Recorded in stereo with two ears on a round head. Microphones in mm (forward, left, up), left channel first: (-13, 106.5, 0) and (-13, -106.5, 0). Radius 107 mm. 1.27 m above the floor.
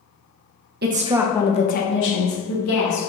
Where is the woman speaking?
40° right (ahead or behind), 0.6 m; by 3.0 s 70° left (ahead or behind), 1.5 m.